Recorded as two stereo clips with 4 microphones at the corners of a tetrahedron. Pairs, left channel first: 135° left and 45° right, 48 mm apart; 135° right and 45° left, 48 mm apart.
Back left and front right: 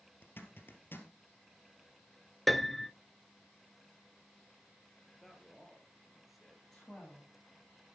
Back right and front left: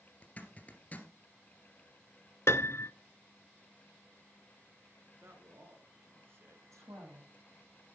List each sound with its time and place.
0.2 s a zipper: 170° left, 2 m
2.5 s a piano: 135° right, 0.6 m
5.1 s a man speaking: 40° left, 3 m
6.7 s a woman speaking: 50° left, 8 m